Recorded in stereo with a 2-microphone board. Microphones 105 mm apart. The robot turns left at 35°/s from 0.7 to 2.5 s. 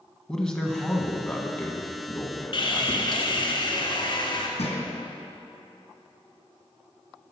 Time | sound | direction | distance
0.3 | a man speaking | 5° left (ahead or behind) | 1.0 m
2.5 | sawing | 55° left (ahead or behind) | 1.4 m
4.6 | a thud | 75° left (ahead or behind) | 2.5 m